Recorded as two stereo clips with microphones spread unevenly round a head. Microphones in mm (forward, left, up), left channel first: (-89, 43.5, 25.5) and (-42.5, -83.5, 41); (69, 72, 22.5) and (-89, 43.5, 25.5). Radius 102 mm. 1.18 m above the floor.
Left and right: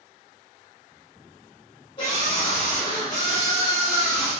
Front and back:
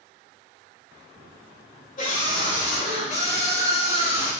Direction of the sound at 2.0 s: 45° left.